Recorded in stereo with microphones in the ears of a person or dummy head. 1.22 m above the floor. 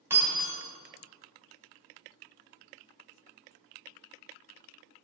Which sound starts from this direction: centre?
Breaking glass, at 0.1 s.